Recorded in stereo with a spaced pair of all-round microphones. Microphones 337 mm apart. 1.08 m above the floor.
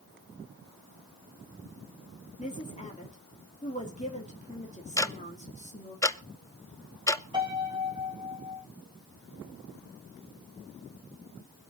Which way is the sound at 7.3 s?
15° right (ahead or behind).